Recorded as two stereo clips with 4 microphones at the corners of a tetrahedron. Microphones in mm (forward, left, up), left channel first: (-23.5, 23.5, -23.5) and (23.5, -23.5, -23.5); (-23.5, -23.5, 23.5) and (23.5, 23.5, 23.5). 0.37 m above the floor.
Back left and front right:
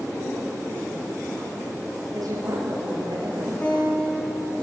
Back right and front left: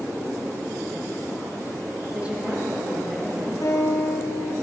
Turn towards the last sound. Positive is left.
turn(degrees=-160)